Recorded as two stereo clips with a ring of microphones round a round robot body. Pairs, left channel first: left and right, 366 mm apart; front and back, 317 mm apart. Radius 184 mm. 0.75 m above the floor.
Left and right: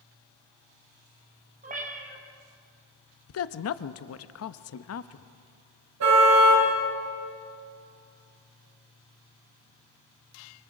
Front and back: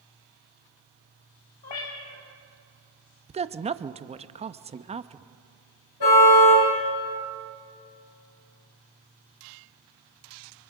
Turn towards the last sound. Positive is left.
turn(degrees=-40)